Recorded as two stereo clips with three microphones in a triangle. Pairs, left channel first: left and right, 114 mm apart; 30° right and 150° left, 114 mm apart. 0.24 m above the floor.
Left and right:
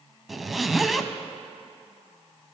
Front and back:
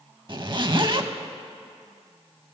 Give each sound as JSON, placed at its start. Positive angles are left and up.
{"t": 0.3, "sound": "a zipper", "azimuth_deg": 180, "distance_m": 0.5}